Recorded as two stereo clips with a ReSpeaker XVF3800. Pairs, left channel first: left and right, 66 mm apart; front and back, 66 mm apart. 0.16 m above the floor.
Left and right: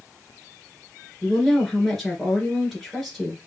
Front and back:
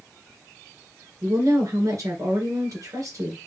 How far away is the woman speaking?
About 2 m.